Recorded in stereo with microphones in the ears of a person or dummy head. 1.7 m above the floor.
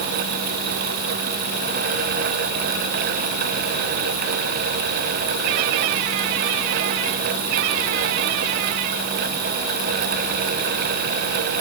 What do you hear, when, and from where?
Only background noise.